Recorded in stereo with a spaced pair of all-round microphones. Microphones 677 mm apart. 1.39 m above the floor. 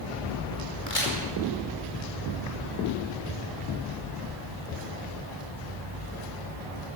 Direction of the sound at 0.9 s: 60° left (ahead or behind).